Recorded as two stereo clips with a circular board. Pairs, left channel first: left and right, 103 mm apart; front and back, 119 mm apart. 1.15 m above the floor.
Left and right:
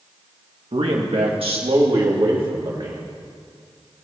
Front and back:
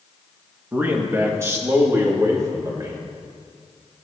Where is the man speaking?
105° right, 1.6 m; by 3.0 s 120° right, 2.5 m.